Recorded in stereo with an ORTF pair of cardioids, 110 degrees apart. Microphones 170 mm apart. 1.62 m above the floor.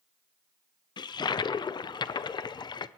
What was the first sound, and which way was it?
A toilet flushing, 25° left.